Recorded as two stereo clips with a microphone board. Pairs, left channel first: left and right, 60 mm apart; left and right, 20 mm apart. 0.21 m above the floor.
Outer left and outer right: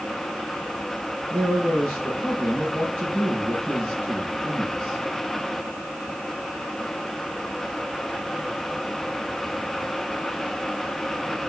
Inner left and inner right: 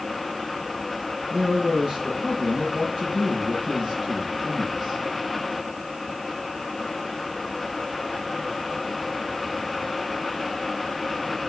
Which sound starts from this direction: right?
A man speaking, at 1.3 s.